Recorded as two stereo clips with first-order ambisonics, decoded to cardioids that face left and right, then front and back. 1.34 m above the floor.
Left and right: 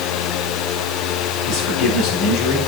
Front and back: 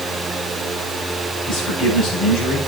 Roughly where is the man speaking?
Ahead left.